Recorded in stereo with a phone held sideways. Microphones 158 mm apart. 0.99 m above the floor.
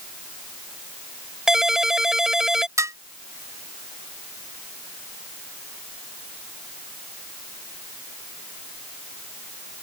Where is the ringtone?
5° right (ahead or behind).